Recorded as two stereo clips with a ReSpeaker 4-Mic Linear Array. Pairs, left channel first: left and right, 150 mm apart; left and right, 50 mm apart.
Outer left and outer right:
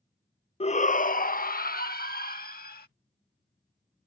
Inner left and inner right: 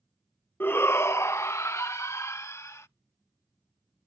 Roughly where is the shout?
Left.